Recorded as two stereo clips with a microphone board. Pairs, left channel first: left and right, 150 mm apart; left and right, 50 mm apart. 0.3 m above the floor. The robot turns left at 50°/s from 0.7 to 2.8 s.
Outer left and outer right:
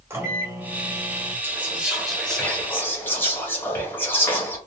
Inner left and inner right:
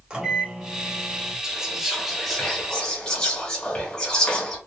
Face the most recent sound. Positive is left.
turn(degrees=15)  # may be behind; listen again after turning